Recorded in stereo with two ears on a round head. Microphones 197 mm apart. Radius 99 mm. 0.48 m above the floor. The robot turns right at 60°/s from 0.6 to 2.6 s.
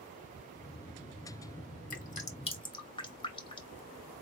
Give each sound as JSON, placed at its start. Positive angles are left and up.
{"t": 1.9, "sound": "dripping", "side_deg": 40, "distance_m": 1.2}